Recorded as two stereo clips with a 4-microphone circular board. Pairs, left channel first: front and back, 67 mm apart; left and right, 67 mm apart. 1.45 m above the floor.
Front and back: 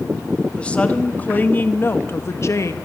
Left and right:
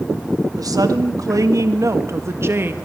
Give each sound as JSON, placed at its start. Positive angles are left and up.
{"t": 0.6, "sound": "a woman speaking", "azimuth_deg": -75, "distance_m": 1.9}